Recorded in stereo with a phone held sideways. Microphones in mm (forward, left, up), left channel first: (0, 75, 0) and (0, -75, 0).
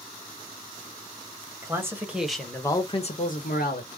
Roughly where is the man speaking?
Centre.